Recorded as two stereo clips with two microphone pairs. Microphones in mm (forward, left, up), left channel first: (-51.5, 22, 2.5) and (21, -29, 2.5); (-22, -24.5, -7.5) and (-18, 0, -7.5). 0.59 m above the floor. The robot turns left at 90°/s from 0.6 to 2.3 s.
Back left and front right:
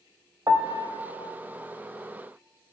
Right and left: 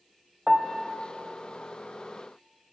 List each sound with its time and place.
0.5 s a piano: 15° left, 0.7 m; by 0.9 s 20° right, 0.7 m